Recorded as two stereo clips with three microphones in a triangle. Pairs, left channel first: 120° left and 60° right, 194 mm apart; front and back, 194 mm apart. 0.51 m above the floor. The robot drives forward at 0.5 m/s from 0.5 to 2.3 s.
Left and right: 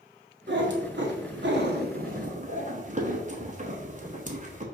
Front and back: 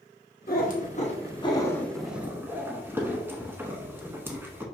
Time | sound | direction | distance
0.5 | a cat meowing | 40° right | 1.1 m